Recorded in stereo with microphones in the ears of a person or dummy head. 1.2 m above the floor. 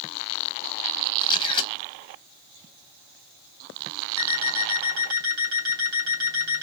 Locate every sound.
1.2 s a camera shutter: 25° left (ahead or behind), 1.1 m
4.2 s an alarm clock: 55° right (ahead or behind), 2.5 m